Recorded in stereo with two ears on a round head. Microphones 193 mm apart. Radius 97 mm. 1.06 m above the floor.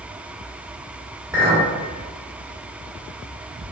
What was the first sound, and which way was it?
A clink, 10° right (ahead or behind).